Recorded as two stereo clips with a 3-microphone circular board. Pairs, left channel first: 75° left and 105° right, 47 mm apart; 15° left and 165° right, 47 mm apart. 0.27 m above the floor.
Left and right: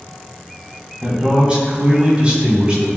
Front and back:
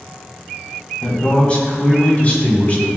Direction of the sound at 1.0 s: 45° right.